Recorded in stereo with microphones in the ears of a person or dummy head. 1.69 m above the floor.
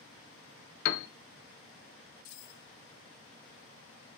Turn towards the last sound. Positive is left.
turn(degrees=65)  # may be behind; listen again after turning